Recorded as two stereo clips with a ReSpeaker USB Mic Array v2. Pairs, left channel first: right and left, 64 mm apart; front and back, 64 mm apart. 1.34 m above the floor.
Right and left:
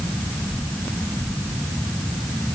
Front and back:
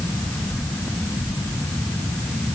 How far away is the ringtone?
No ringtone in this recording.